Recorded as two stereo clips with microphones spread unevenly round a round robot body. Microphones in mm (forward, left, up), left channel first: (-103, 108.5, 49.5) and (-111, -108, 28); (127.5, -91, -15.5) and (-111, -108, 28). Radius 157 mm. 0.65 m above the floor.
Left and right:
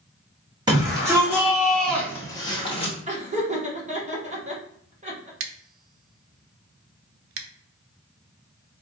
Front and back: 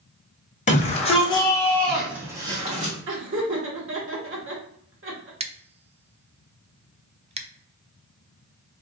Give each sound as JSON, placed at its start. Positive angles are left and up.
{"t": 0.7, "sound": "a shout", "azimuth_deg": -30, "distance_m": 1.5}
{"t": 3.1, "sound": "laughter", "azimuth_deg": -140, "distance_m": 1.6}
{"t": 5.4, "sound": "scissors", "azimuth_deg": -105, "distance_m": 0.6}